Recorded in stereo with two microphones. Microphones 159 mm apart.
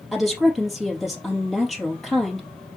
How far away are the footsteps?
No footsteps in this recording.